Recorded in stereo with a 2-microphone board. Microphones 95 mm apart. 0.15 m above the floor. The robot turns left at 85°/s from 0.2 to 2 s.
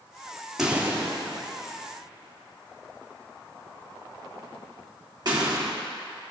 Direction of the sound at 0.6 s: 5° right (ahead or behind).